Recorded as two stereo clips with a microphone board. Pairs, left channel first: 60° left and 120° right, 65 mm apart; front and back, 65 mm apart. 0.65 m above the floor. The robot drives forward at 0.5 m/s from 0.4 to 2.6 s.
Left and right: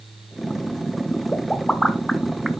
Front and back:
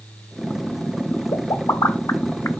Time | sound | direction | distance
1.3 | a pop | 20° right | 1.0 m